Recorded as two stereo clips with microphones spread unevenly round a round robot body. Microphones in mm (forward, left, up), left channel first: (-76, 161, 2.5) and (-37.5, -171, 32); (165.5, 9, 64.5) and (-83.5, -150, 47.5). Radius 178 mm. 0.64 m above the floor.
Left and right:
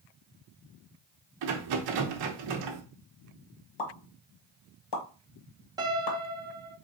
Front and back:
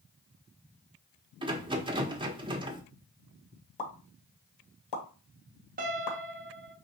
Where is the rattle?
75° right, 0.8 m.